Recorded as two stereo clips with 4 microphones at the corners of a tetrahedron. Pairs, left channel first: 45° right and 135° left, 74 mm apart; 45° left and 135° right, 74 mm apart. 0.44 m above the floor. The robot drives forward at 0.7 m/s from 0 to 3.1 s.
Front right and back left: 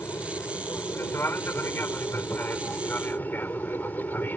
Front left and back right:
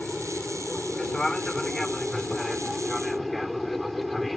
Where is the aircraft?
25° right; by 4.4 s 40° right.